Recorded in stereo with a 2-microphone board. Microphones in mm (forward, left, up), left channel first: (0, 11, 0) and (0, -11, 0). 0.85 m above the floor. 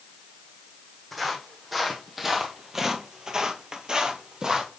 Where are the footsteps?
Centre (ahead or behind), 1.9 m; by 4.7 s 30° right (ahead or behind), 1.3 m.